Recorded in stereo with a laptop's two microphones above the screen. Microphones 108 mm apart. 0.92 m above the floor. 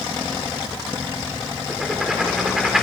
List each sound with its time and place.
1.7 s writing: 5° right (ahead or behind), 3.5 m